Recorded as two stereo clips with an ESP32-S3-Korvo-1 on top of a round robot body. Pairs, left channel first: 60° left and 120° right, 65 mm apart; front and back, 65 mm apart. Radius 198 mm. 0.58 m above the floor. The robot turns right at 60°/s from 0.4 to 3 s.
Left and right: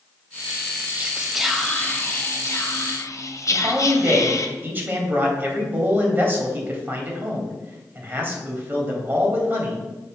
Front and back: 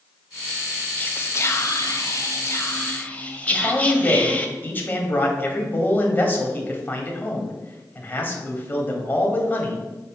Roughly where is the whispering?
Ahead right.